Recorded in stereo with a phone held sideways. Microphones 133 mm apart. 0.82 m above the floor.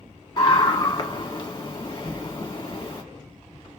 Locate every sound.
0.4 s a scream: 25° left (ahead or behind), 1.5 m
2.0 s an explosion: 10° left (ahead or behind), 0.7 m